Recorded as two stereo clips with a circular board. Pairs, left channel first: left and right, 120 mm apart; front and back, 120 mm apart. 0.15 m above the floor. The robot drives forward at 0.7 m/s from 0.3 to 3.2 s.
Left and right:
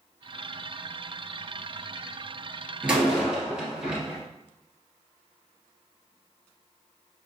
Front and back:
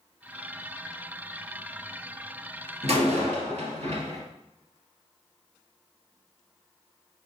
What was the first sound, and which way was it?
A door slam, 170° right.